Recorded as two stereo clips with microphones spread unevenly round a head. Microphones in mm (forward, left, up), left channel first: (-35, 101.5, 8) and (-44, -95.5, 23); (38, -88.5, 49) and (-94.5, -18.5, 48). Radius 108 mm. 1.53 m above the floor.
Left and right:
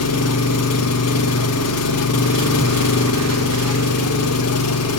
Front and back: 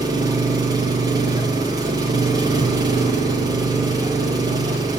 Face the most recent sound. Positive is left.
turn(degrees=80)